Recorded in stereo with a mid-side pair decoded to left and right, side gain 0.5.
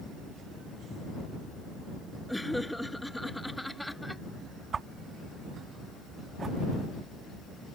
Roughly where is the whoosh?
Ahead right.